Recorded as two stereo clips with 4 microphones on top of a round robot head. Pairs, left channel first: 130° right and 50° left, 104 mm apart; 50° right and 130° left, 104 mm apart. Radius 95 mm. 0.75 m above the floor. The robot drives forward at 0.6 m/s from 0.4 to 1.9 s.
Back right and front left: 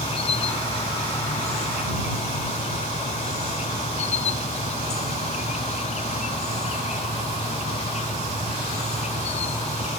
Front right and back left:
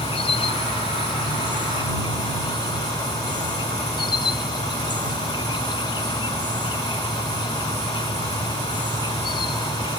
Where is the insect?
95° right; by 10.0 s 105° right.